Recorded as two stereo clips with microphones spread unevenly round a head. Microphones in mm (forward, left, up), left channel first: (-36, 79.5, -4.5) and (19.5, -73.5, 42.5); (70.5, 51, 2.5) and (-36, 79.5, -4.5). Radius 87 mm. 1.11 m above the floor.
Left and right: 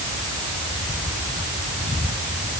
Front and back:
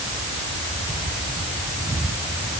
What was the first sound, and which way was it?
Only background noise.